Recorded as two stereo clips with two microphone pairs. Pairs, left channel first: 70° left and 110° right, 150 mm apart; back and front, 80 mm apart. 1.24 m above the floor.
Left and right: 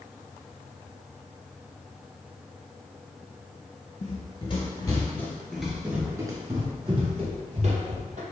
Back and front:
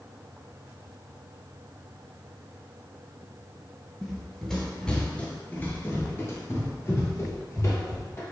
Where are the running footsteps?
85° left, 1.7 m; by 8.2 s 130° right, 2.5 m.